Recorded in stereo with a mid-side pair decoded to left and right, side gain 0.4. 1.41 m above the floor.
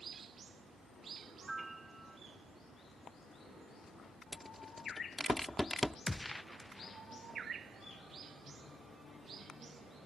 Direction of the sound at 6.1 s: 15° left.